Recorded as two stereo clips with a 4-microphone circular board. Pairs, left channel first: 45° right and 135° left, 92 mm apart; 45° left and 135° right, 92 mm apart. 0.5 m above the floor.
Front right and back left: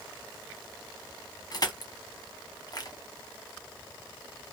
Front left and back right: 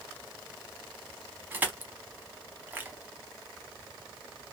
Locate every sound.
1.5 s crushing: 70° right, 1.0 m